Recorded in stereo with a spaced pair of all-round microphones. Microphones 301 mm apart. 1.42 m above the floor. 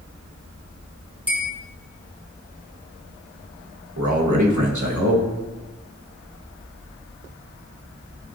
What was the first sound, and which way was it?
A bell, 5° right (ahead or behind).